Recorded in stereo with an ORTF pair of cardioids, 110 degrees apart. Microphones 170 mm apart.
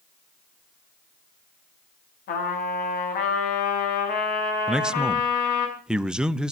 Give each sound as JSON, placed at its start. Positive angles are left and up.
{"t": 2.3, "sound": "a trumpet", "azimuth_deg": 60, "distance_m": 5.5}
{"t": 4.7, "sound": "a man speaking", "azimuth_deg": -5, "distance_m": 0.8}